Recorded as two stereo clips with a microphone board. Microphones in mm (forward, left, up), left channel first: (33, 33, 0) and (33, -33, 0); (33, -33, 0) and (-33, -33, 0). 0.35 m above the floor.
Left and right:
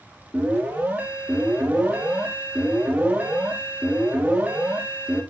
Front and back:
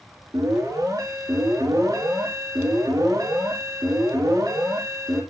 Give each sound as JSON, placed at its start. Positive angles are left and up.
{"t": 0.3, "sound": "an alarm", "azimuth_deg": -155, "distance_m": 3.5}